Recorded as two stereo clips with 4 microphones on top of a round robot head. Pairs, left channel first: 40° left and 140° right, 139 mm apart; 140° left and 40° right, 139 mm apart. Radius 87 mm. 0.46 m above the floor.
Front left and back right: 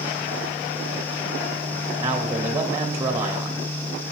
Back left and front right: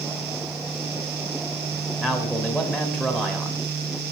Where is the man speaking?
160° right, 1.0 m.